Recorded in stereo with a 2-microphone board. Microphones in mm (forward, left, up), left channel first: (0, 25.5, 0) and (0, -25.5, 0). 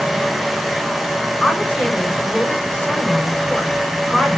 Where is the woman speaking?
20° left (ahead or behind), 7.5 m.